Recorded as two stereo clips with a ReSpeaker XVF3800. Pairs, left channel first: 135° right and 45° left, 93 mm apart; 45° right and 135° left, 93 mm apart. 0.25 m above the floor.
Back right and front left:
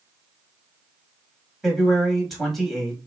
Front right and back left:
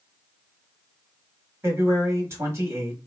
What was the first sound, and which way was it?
A man speaking, 135° left.